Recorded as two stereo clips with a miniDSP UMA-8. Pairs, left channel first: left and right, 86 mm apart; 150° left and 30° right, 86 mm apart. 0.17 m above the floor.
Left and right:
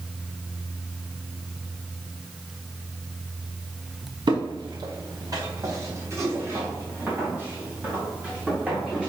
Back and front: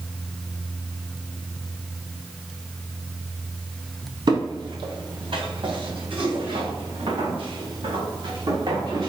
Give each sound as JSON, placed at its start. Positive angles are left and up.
{"t": 4.3, "sound": "footsteps", "azimuth_deg": -60, "distance_m": 2.5}